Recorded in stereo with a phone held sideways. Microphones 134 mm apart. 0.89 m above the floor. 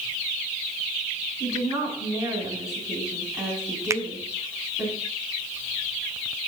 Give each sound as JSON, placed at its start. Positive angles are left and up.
{"t": 1.4, "sound": "a woman speaking", "side_deg": -10, "distance_m": 6.0}
{"t": 3.9, "sound": "a finger snap", "side_deg": -20, "distance_m": 0.5}